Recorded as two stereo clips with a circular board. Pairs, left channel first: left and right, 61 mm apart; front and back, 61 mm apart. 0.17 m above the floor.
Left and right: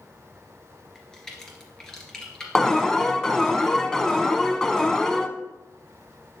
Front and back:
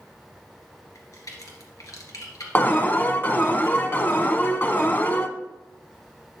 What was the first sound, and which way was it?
A crack, 10° left.